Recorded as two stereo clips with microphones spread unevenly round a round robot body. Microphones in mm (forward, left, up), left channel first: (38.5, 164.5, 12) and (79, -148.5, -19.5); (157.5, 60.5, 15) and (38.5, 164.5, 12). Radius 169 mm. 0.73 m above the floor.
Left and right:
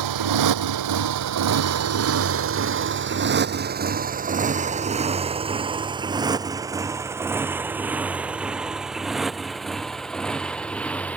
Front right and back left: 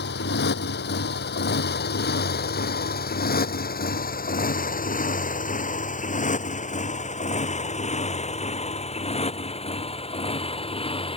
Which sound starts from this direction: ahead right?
A motorcycle, at 0.0 s.